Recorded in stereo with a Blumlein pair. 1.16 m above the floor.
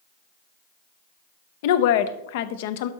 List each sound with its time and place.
1.6 s a woman speaking: 50° left, 0.6 m